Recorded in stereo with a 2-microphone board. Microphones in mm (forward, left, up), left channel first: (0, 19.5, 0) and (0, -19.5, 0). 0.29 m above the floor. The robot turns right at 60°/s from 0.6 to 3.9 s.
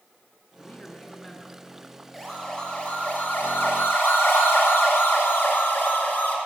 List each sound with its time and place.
0.6 s a man speaking: 135° left, 4 m; by 2.0 s 140° right, 4 m
2.1 s a siren: centre (ahead or behind), 8 m; by 6.4 s 55° left (ahead or behind), 5 m